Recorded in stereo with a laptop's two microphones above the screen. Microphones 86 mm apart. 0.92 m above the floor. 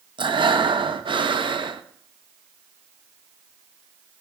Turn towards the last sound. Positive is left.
turn(degrees=-65)  # may be behind; listen again after turning